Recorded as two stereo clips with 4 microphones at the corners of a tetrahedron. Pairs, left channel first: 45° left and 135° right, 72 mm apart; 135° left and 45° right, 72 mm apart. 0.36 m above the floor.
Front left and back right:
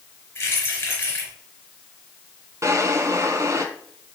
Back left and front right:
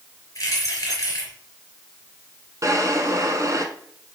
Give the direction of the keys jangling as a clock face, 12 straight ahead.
9 o'clock.